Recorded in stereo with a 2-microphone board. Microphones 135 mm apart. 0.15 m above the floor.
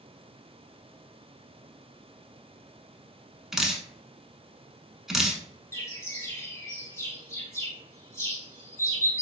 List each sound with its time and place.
3.5 s dripping: 5° right (ahead or behind), 0.6 m
5.7 s a bird: 25° left (ahead or behind), 1.0 m